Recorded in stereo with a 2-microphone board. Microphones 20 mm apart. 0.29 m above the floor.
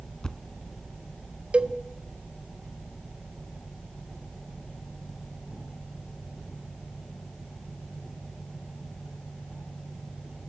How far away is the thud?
About 1.1 m.